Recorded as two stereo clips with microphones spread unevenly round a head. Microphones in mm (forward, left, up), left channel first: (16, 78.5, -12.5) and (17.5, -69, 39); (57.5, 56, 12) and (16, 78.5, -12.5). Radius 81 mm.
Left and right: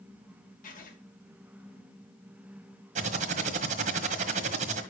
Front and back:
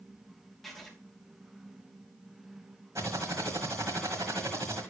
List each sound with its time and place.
0.6 s writing: 60° left, 2.5 m
3.0 s typing on a keyboard: 130° right, 1.5 m